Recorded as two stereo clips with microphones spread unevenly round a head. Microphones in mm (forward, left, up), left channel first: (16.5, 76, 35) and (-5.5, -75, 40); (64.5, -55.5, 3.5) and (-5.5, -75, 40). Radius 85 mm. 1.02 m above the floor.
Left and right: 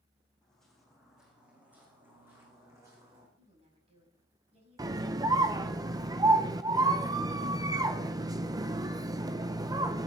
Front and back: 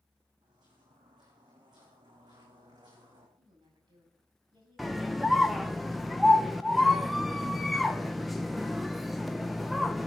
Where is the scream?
40° right, 0.7 m.